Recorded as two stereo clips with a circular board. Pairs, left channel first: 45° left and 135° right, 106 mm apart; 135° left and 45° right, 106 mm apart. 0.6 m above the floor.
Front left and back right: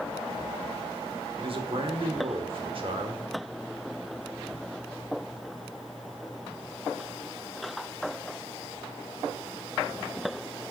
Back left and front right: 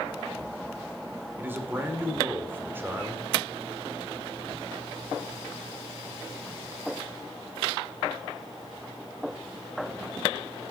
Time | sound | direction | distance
1.4 | a man speaking | 115° right | 1.6 m